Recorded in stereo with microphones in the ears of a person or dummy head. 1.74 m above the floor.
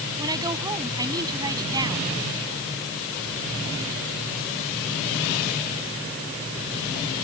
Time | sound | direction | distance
0.2 | a woman speaking | 25° right (ahead or behind) | ?